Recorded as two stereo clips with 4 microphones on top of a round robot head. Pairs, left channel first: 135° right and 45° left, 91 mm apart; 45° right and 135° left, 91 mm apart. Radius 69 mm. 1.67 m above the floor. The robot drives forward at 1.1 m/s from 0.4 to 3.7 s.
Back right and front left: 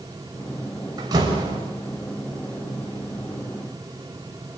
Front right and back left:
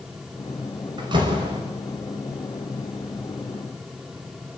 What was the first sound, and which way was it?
A door slam, 90° left.